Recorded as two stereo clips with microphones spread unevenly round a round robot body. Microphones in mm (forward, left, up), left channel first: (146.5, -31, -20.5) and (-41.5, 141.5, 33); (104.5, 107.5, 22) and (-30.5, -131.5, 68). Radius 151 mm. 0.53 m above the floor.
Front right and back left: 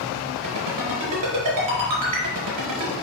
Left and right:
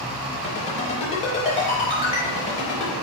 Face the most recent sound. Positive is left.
turn(degrees=130)